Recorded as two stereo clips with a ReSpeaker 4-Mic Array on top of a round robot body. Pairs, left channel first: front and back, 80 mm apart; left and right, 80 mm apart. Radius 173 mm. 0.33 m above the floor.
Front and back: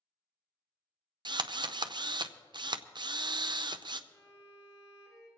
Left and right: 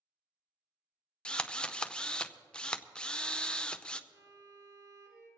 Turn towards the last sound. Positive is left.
turn(degrees=-50)